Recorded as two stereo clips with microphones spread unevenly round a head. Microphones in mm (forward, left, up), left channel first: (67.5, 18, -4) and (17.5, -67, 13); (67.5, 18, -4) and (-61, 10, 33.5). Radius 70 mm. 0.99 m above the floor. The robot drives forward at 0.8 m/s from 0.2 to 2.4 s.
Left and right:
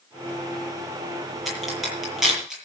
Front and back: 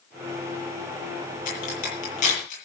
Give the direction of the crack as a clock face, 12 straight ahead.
1 o'clock.